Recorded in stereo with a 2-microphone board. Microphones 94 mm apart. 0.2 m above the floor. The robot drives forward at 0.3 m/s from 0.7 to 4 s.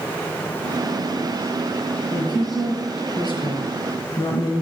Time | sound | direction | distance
2.1 | a woman speaking | 55° left (ahead or behind) | 3 m